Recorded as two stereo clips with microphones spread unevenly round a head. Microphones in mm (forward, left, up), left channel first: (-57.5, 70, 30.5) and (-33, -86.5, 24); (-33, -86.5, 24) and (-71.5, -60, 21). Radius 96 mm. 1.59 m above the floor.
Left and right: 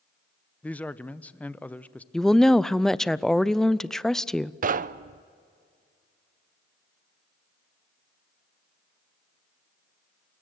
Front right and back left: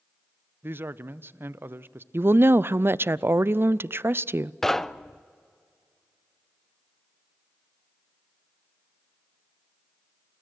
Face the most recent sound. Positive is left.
turn(degrees=-115)